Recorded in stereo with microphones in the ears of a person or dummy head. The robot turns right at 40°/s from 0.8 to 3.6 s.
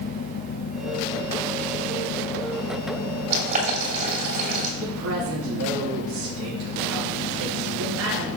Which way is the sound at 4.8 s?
65° right (ahead or behind).